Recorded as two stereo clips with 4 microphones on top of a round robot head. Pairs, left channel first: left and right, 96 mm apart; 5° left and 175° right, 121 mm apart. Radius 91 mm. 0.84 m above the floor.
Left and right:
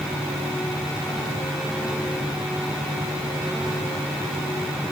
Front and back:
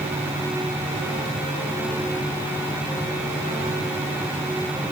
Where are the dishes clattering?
No dishes clattering in this recording.